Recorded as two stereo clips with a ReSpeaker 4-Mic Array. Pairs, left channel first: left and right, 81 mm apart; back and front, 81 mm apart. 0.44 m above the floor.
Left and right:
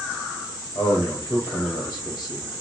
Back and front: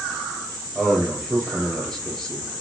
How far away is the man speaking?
About 2 m.